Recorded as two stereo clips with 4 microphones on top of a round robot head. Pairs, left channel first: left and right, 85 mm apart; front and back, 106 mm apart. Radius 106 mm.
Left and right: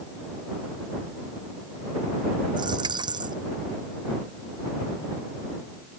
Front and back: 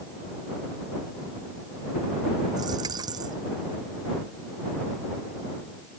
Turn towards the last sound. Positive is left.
turn(degrees=-120)